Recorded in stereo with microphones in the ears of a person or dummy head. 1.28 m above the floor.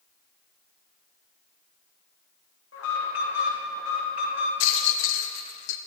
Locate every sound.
2.7 s an alarm: 70° left (ahead or behind), 1.7 m
4.6 s a rattle: 65° left (ahead or behind), 0.5 m